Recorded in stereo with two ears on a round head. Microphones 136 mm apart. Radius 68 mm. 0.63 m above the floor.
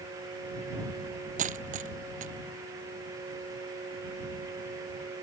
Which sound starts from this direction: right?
A dropped coin, at 1.4 s.